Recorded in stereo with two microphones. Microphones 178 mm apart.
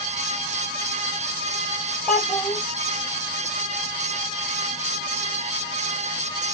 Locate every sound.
2.1 s a child speaking: 5° left (ahead or behind), 4 m